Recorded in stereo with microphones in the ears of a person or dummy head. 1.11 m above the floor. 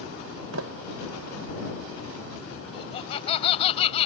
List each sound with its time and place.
0.5 s a sliding door: 80° right
2.7 s laughter: 30° left (ahead or behind)